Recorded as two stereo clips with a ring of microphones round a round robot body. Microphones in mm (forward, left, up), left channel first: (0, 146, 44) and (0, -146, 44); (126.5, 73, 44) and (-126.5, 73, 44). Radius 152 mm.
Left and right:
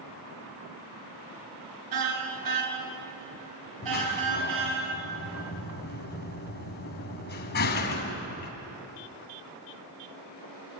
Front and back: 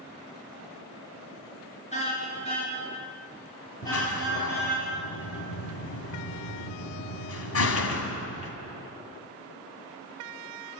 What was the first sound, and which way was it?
A car horn, 70° right.